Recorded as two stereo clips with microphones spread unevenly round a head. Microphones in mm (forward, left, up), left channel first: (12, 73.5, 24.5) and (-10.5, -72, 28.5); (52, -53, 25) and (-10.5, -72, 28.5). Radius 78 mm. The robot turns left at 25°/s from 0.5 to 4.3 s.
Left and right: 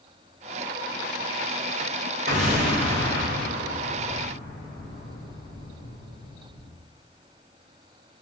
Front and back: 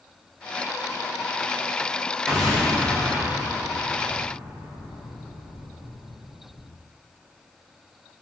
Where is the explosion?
75° right, 1.7 m; by 6.7 s 125° right, 1.7 m.